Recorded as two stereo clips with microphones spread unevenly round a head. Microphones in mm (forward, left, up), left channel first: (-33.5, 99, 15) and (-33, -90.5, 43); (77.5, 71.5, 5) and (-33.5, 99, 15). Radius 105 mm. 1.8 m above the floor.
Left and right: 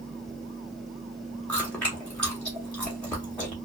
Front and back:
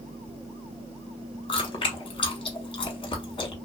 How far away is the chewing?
About 0.9 m.